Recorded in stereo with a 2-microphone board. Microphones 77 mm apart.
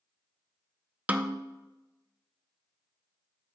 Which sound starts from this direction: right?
A snare drum, at 1.1 s.